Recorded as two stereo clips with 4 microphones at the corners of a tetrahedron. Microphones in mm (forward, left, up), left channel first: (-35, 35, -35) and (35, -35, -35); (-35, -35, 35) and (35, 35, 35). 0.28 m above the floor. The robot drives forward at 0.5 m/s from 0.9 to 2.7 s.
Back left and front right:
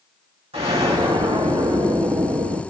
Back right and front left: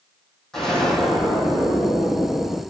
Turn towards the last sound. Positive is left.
turn(degrees=-60)